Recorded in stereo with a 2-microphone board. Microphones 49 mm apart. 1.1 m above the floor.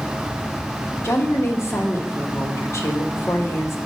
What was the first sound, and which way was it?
A woman speaking, 65° left (ahead or behind).